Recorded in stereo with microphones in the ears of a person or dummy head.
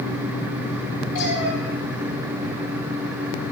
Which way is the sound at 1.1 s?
75° left (ahead or behind).